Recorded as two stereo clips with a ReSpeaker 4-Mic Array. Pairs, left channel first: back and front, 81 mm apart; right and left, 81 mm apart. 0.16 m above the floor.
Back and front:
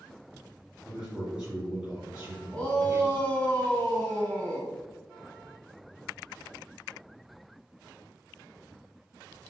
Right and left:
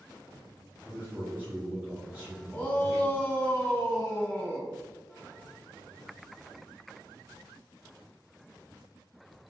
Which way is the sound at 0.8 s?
65° left.